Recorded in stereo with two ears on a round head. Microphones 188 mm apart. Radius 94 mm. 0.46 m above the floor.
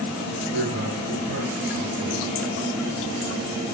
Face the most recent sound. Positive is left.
turn(degrees=-70)  # may be behind; listen again after turning